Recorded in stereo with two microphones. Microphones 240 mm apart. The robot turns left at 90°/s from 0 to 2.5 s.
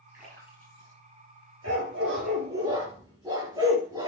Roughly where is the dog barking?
Right.